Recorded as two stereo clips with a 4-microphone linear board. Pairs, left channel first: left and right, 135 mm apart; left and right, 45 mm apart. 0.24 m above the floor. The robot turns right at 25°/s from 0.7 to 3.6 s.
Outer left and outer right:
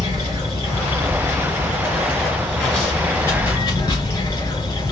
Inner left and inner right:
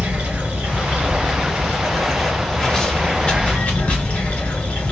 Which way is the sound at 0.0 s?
45° right.